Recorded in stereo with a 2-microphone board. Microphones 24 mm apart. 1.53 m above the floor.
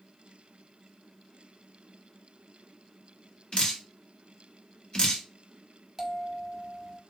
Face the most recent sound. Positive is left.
turn(degrees=-15)  # may be behind; listen again after turning